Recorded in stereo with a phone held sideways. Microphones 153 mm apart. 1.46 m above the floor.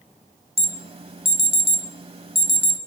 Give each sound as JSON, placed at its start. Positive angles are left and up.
{"t": 0.6, "sound": "an alarm", "side_deg": -40, "distance_m": 1.0}